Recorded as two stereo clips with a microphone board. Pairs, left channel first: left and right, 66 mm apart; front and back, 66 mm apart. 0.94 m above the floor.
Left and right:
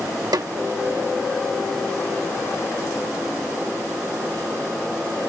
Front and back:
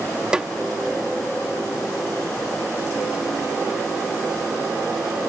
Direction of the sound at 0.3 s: 105° right.